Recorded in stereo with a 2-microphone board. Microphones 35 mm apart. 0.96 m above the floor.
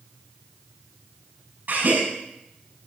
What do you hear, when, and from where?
1.7 s a gasp: 65° right (ahead or behind), 7.5 m